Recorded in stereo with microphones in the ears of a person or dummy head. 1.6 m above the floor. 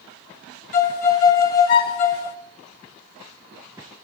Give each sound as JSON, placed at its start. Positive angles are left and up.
{"t": 0.7, "sound": "a violin", "side_deg": 40, "distance_m": 1.1}